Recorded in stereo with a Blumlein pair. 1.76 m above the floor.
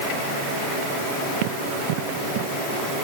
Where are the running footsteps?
50° right; by 2.9 s 40° right.